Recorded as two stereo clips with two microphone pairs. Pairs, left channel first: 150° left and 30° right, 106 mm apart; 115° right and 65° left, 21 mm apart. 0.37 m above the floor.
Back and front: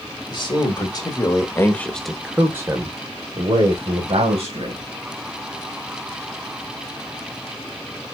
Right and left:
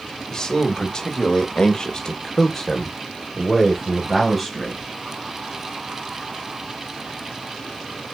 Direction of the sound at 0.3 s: 175° right.